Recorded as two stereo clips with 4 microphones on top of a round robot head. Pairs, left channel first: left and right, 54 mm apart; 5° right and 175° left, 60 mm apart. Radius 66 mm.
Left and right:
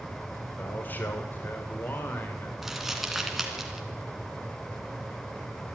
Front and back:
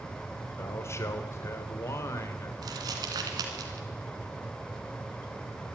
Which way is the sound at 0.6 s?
35° left.